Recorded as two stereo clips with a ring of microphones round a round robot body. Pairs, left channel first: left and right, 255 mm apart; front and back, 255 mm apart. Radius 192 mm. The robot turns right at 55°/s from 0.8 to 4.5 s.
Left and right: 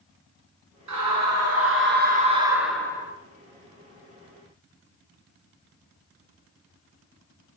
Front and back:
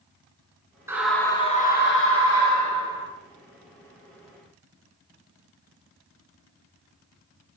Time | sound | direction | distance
0.9 | a scream | 100° right | 5 m